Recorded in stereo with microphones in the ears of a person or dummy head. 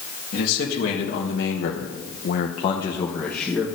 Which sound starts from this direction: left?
A man speaking, at 0.3 s.